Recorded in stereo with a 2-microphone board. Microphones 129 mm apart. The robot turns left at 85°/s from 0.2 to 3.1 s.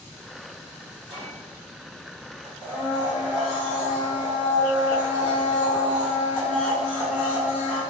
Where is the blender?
10° left (ahead or behind), 1.2 m; by 7.8 s 5° right (ahead or behind), 1.2 m.